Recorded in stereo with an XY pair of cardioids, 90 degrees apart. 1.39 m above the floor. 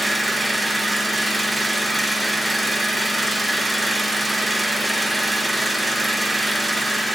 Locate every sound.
0.0 s an engine running: 15° right, 1.4 m